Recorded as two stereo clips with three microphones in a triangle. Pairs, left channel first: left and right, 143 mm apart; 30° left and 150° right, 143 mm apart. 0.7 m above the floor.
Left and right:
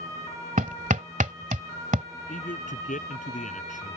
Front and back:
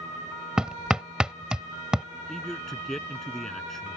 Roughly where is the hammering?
Ahead right.